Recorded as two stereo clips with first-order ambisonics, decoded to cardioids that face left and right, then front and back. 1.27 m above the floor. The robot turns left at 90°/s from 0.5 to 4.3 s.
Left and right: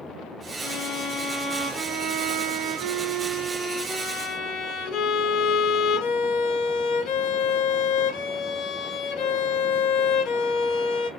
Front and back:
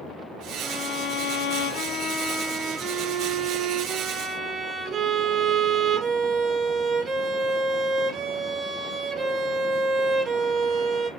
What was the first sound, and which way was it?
A violin, 90° left.